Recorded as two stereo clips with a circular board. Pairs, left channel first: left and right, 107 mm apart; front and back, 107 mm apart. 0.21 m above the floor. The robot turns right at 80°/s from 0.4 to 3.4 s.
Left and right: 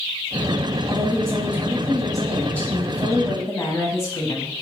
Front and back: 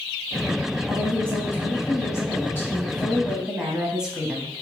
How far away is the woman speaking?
About 1.0 m.